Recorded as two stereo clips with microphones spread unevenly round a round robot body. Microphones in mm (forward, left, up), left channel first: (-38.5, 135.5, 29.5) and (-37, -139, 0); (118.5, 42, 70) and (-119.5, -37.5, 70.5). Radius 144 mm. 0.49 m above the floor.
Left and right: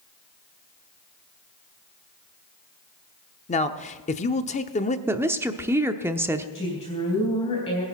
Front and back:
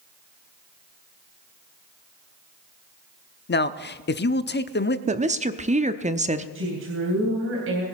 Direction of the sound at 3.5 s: 30° left.